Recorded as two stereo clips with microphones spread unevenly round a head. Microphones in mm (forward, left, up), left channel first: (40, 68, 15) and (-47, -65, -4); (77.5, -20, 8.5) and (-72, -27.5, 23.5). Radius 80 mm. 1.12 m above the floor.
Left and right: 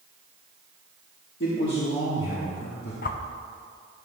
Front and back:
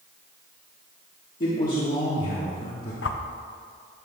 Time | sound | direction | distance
1.4 | a man speaking | 35° left | 1.4 m
3.0 | a whoosh | 25° left | 0.6 m